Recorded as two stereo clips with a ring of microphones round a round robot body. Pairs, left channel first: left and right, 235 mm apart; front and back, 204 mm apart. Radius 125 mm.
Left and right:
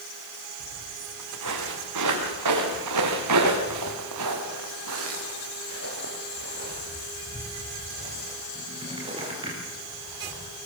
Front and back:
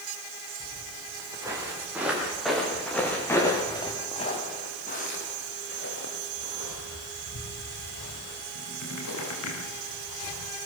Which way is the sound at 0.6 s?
110° right.